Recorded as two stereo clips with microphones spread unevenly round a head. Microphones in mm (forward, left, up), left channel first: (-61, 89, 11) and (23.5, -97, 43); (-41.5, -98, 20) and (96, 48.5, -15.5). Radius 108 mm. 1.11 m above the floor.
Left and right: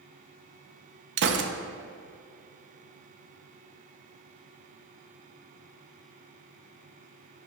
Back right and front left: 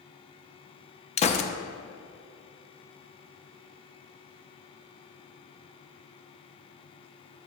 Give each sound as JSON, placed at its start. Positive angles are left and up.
{"t": 1.2, "sound": "a gunshot", "azimuth_deg": -85, "distance_m": 0.6}